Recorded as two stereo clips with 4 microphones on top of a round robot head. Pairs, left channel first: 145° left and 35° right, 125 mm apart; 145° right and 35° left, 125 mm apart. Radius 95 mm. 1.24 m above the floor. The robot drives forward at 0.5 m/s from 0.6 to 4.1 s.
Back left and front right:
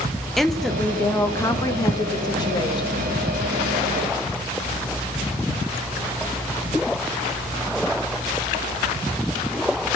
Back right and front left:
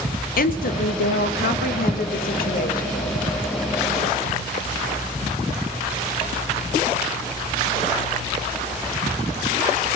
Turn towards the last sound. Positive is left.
turn(degrees=-165)